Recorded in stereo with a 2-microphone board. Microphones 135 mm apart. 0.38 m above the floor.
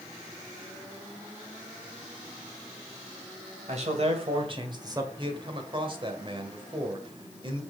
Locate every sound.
3.7 s a man speaking: 50° right (ahead or behind), 2.5 m; by 5.1 s 20° right (ahead or behind), 1.6 m
5.2 s a man speaking: 35° right (ahead or behind), 1.6 m